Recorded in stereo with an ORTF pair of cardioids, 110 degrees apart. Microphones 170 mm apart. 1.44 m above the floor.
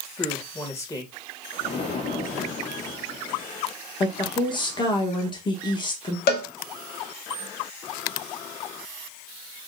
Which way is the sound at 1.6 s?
35° left.